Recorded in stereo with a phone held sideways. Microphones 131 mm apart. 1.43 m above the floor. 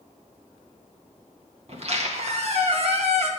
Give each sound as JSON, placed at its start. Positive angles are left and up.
{"t": 1.7, "sound": "a squeak", "side_deg": -55, "distance_m": 1.5}